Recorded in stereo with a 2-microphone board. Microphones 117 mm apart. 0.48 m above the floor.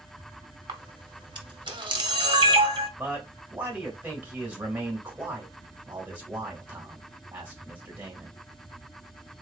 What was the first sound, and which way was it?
A camera shutter, 45° right (ahead or behind).